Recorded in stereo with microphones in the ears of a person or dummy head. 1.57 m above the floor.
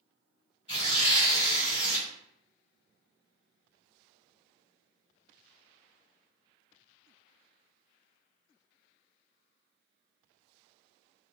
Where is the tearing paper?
35° left (ahead or behind), 1.5 m.